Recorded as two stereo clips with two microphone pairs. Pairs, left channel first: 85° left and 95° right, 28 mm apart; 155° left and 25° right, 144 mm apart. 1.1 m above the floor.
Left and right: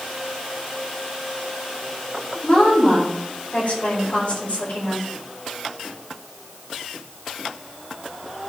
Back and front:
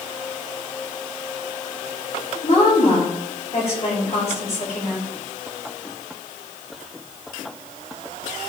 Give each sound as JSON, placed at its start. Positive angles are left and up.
{"t": 2.4, "sound": "a woman speaking", "azimuth_deg": 115, "distance_m": 4.5}